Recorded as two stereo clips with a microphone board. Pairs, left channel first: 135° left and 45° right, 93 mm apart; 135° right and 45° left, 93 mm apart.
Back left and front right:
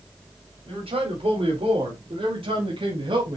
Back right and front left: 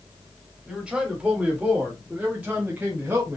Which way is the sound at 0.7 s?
40° right.